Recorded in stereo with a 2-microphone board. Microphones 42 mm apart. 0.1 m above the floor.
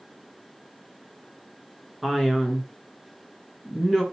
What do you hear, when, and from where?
2.0 s a man speaking: 5° right (ahead or behind), 1.1 m